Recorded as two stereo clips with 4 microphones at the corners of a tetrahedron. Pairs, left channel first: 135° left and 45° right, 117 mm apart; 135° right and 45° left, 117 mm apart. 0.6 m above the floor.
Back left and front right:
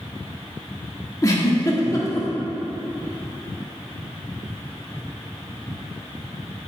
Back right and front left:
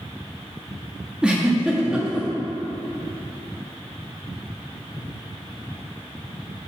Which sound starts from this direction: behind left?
A giggle, at 1.2 s.